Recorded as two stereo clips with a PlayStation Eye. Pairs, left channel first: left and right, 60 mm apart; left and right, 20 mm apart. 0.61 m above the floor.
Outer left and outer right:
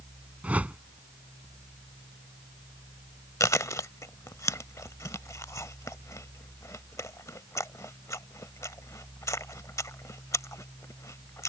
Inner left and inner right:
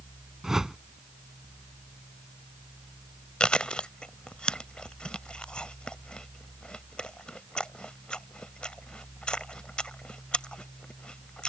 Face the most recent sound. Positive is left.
turn(degrees=60)  # may be behind; listen again after turning